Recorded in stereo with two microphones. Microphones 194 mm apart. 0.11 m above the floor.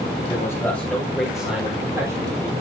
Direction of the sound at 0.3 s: 20° left (ahead or behind).